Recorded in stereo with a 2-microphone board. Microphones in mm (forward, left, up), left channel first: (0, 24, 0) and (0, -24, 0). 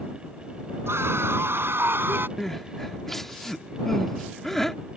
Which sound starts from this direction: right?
A scream, at 0.9 s.